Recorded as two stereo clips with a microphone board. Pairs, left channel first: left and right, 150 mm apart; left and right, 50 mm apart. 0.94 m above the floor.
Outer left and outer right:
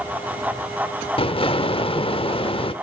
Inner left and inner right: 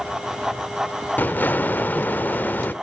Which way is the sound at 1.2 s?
40° left (ahead or behind).